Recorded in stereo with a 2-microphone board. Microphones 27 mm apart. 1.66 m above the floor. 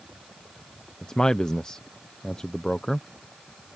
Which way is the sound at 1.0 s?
30° left (ahead or behind).